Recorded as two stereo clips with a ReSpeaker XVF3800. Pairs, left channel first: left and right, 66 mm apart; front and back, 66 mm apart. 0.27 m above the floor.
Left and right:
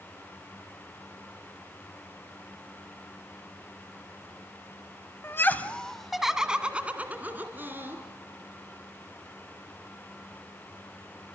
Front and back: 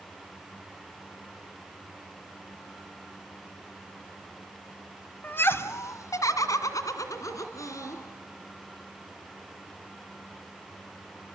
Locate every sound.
5.2 s laughter: 50° left, 1.4 m; by 8.0 s 35° right, 3.5 m